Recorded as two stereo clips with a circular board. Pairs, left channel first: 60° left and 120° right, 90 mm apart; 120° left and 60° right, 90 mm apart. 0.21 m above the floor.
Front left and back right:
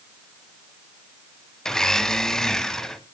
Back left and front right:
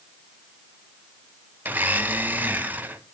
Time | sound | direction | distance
1.6 | a blender | 15° right | 1.3 m